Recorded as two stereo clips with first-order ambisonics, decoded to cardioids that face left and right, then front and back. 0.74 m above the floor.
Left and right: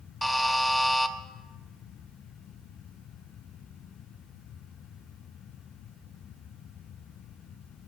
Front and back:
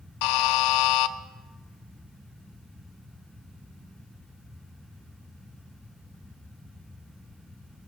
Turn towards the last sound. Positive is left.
turn(degrees=0)